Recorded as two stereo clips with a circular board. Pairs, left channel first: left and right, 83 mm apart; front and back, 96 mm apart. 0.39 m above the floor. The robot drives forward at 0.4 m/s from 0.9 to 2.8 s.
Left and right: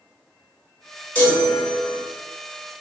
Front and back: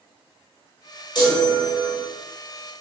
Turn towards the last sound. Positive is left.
turn(degrees=50)